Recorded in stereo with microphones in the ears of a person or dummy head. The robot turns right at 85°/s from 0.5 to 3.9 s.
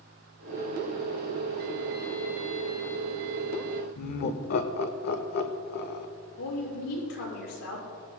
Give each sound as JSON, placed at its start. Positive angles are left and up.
{"t": 4.0, "sound": "laughter", "side_deg": 50, "distance_m": 1.0}
{"t": 6.4, "sound": "a woman speaking", "side_deg": 90, "distance_m": 5.5}